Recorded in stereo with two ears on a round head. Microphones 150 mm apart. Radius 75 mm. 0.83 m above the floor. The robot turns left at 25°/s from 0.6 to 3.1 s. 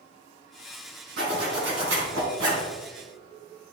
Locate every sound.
1.2 s a zipper: 55° right, 3.5 m; by 2.7 s 90° right, 3.5 m